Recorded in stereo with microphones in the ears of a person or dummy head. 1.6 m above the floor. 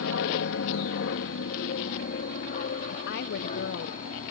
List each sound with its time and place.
0.0 s an aircraft: 65° left (ahead or behind); by 4.3 s 40° left (ahead or behind)
2.9 s a woman speaking: 60° left (ahead or behind)